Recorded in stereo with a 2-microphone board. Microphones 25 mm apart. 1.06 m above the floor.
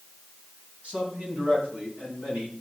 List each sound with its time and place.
0.8 s a man speaking: 85° right, 9 m